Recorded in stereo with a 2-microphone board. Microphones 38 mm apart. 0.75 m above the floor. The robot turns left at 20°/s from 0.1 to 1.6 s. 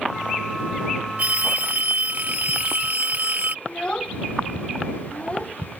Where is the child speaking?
30° left (ahead or behind).